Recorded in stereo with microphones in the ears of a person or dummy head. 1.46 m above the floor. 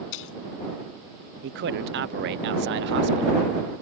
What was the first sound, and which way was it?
A splash, 70° left (ahead or behind).